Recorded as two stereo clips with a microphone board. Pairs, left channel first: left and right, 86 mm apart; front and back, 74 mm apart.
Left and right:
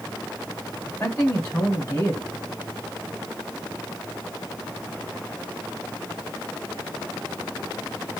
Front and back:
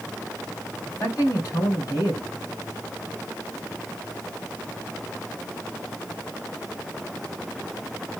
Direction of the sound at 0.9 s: 40° left.